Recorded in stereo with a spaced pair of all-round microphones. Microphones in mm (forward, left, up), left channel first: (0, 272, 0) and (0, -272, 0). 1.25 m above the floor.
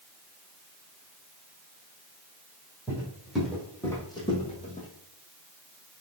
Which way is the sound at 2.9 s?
5° right (ahead or behind).